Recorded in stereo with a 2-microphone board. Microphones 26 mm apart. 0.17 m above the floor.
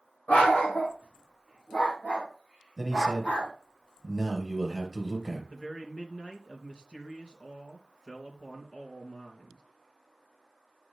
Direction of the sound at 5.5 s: 35° left (ahead or behind).